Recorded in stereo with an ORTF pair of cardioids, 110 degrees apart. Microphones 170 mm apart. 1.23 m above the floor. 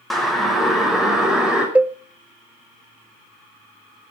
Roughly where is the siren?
Ahead.